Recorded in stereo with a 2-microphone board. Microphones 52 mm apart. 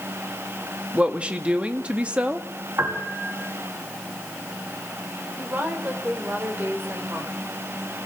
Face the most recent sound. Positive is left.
turn(degrees=-35)  # may be behind; listen again after turning